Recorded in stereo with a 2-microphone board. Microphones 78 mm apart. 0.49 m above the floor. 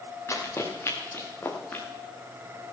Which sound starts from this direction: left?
Running footsteps, at 0.3 s.